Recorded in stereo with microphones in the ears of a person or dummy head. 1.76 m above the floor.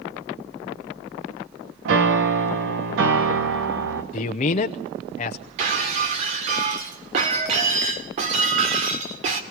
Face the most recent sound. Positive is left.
turn(degrees=-35)  # may be behind; listen again after turning